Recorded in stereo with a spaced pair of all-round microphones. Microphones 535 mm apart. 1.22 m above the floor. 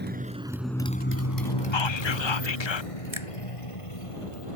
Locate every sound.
0.0 s a motorcycle: 20° right (ahead or behind); by 4.6 s 70° left (ahead or behind)
1.7 s whispering: 55° left (ahead or behind)
3.1 s a finger snap: 65° right (ahead or behind)